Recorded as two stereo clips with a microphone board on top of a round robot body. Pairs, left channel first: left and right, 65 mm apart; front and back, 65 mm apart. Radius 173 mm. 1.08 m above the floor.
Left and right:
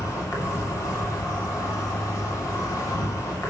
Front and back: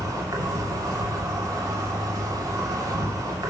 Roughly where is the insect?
Behind left.